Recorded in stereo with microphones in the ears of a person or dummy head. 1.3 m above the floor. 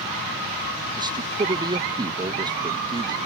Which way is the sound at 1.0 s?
20° right (ahead or behind).